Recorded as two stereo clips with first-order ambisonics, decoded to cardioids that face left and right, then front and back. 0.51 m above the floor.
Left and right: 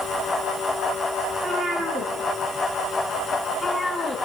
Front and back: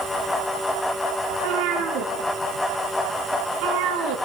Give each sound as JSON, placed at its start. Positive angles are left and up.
{"t": 1.3, "sound": "a cat meowing", "azimuth_deg": -160, "distance_m": 3.0}